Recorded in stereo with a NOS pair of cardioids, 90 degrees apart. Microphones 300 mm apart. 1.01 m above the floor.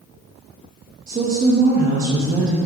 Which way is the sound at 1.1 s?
25° right.